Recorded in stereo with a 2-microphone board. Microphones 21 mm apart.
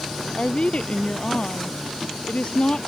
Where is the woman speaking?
55° left (ahead or behind).